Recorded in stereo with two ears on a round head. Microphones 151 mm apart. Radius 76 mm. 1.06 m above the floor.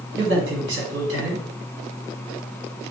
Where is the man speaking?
75° right (ahead or behind), 1.5 m.